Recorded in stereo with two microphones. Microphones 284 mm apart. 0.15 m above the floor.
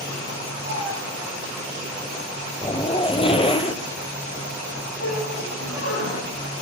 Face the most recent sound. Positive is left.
turn(degrees=55)  # may be behind; listen again after turning